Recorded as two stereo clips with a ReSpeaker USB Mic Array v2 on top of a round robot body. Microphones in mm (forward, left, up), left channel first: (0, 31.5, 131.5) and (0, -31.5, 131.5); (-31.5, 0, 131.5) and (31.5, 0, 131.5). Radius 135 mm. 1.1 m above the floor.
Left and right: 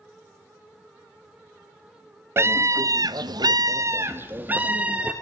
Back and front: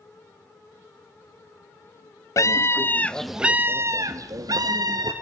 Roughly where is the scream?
Behind right.